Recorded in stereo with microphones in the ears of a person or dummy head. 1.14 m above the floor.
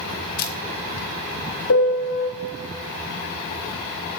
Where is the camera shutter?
50° left (ahead or behind), 1.6 m.